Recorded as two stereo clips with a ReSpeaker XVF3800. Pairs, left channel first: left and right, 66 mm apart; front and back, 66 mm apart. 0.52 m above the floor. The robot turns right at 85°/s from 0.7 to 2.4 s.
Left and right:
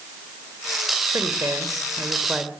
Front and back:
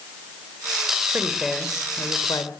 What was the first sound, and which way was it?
A woman speaking, 120° right.